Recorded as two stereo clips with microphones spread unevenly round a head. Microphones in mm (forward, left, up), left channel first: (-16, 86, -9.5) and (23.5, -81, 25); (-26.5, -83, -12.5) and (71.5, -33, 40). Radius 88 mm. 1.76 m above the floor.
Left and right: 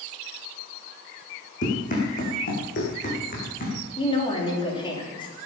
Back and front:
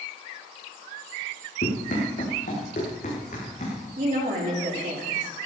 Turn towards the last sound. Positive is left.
turn(degrees=35)